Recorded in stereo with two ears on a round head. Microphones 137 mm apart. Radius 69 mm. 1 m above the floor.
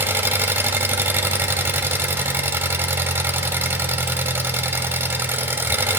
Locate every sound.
0.0 s an engine running: 15° right (ahead or behind), 1.6 m